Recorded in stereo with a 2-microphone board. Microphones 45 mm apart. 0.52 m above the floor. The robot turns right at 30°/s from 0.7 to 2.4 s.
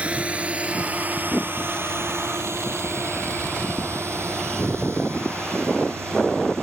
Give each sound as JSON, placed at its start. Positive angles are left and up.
{"t": 0.0, "sound": "a drone", "side_deg": -30}